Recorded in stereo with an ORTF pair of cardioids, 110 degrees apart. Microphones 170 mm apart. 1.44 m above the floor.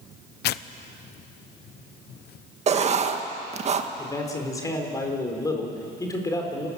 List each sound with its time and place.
0.4 s tearing paper: 65° left, 0.7 m
2.7 s writing: 35° right, 1.6 m
4.0 s a man speaking: 20° left, 4.5 m